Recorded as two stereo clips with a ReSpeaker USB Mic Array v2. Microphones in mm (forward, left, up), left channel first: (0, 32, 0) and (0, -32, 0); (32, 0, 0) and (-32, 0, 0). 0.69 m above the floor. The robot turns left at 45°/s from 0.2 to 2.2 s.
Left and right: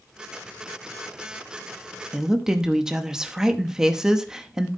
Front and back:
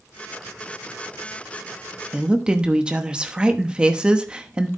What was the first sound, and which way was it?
A woman speaking, 145° right.